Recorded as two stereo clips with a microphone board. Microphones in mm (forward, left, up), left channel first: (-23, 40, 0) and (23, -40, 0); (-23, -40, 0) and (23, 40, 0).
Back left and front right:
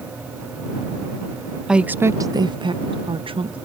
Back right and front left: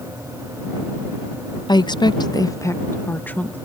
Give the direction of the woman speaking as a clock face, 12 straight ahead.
5 o'clock.